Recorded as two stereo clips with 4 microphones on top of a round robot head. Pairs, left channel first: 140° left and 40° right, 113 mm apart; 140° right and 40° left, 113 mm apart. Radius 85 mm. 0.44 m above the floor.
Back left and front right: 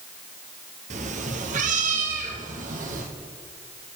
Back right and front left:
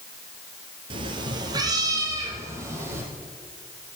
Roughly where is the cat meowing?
Ahead.